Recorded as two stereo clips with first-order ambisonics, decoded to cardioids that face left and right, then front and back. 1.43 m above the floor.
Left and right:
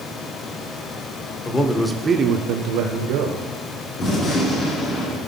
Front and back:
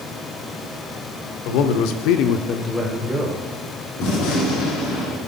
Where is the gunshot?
30° left, 3 m.